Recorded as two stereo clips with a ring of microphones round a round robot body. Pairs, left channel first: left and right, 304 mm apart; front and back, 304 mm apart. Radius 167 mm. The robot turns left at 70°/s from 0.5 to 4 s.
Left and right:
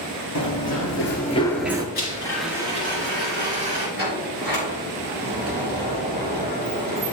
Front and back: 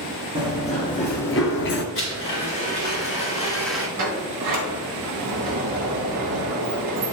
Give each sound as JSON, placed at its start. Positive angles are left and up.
{"t": 0.3, "sound": "running footsteps", "azimuth_deg": 105, "distance_m": 1.5}
{"t": 1.9, "sound": "a blender", "azimuth_deg": 35, "distance_m": 3.0}
{"t": 4.0, "sound": "a sliding door", "azimuth_deg": -145, "distance_m": 2.5}